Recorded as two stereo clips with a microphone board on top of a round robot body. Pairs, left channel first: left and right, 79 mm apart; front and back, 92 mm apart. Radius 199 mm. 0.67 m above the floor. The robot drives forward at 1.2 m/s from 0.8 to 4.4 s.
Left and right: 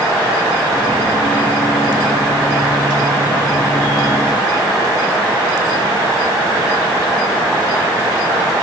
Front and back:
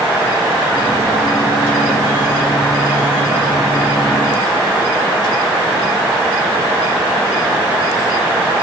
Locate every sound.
Only background noise.